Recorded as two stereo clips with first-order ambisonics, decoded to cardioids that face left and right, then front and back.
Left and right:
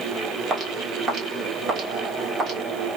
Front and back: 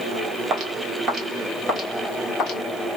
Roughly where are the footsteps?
Behind right.